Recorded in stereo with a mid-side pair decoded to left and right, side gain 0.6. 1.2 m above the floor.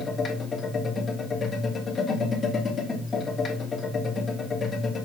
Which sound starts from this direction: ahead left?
A machine running, at 0.0 s.